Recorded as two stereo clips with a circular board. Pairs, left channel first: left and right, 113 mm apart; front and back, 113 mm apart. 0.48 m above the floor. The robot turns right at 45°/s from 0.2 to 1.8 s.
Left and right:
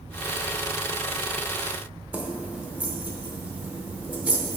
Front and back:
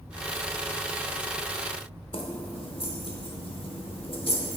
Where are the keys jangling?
15° right, 0.8 m.